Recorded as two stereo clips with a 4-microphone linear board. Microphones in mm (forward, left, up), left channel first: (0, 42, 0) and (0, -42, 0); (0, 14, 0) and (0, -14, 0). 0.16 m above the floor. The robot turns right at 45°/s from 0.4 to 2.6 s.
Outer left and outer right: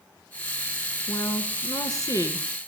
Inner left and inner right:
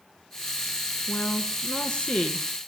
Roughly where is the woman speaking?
Left.